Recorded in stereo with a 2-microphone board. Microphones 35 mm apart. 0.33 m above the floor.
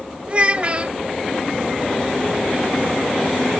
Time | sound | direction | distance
0.3 | a child speaking | 30° right (ahead or behind) | 0.7 m